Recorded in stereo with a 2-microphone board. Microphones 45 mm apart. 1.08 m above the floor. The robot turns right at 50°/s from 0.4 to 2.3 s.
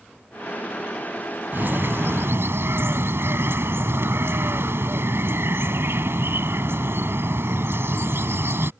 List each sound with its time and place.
1.5 s a bird: 125° right; by 8.7 s 90° right